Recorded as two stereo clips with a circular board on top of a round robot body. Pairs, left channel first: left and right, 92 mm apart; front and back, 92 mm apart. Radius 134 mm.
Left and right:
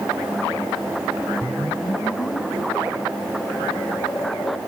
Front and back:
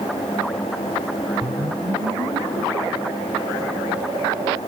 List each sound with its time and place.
1.4 s a whoosh: 150° left